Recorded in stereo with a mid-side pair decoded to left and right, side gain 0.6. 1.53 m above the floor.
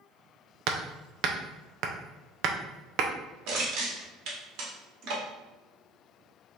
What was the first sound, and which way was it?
Hammering, 60° right.